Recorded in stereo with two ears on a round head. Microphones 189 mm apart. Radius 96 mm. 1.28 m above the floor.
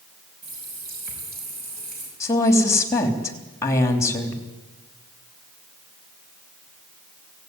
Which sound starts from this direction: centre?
A woman speaking, at 2.2 s.